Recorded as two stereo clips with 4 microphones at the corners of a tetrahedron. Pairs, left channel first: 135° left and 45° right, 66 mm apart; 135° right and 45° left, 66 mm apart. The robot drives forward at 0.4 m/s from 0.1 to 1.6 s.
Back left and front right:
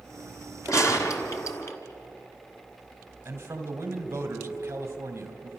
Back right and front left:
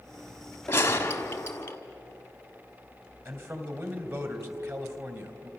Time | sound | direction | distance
0.7 | a gunshot | 170° left | 1.5 m
3.2 | a man speaking | 5° left | 2.5 m